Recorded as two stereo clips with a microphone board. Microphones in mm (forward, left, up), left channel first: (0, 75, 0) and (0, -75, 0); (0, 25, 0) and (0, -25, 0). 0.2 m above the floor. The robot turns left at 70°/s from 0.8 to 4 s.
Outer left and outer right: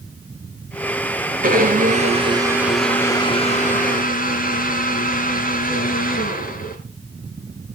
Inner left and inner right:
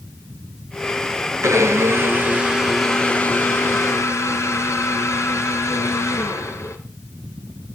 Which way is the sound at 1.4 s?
85° right.